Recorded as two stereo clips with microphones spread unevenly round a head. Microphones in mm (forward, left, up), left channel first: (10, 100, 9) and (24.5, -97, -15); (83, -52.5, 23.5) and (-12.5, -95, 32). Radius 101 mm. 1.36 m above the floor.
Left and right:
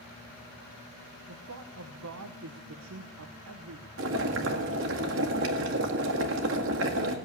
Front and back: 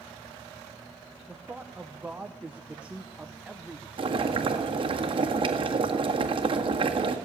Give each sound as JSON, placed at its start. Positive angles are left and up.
{"t": 1.3, "sound": "a man speaking", "azimuth_deg": -75, "distance_m": 1.0}
{"t": 4.0, "sound": "boiling", "azimuth_deg": -120, "distance_m": 1.8}